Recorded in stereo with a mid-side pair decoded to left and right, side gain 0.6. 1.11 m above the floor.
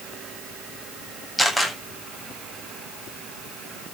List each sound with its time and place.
1.4 s a camera shutter: straight ahead, 8 m